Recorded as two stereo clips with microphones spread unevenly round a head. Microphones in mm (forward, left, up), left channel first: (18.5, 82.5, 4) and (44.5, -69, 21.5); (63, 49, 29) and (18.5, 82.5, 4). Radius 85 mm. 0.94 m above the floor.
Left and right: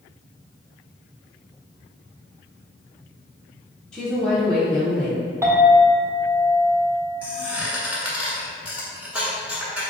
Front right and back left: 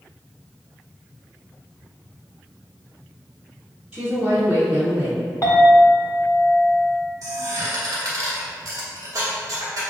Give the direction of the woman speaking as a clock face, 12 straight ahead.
6 o'clock.